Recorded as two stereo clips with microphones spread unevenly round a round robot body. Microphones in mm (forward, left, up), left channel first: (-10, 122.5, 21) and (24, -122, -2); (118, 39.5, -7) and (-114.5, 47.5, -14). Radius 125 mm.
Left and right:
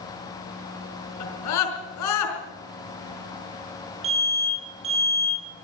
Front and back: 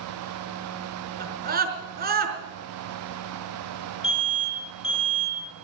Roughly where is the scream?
Behind left.